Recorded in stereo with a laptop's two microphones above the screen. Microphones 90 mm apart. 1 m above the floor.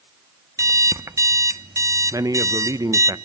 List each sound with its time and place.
0.6 s an alarm clock: 35° right (ahead or behind), 0.5 m
2.1 s a man speaking: 40° right (ahead or behind), 0.9 m